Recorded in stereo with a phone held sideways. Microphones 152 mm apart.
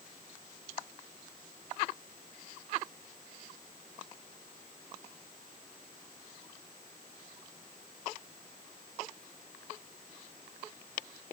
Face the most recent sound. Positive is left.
No sound to turn to.